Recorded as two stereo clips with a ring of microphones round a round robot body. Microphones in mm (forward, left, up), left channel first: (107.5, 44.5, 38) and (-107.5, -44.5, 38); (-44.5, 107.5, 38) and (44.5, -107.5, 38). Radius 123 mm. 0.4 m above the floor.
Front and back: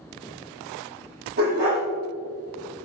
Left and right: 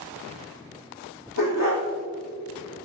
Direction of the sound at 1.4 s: 155° left.